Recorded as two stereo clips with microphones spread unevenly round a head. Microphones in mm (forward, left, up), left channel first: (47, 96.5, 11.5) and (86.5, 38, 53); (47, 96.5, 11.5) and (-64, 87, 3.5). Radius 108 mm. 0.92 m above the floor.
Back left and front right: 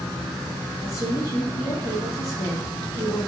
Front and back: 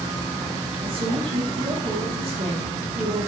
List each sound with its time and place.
0.8 s a woman speaking: 155° left, 2.5 m